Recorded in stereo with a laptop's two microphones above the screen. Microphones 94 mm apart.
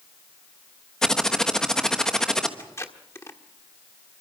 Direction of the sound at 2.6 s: 30° left (ahead or behind).